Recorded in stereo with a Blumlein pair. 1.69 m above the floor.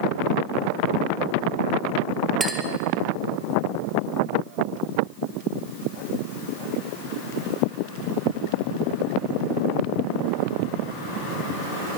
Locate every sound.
2.4 s a clink: 15° right, 2.0 m